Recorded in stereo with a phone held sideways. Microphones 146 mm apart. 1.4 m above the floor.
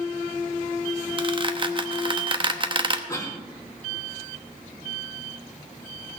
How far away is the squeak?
About 0.9 m.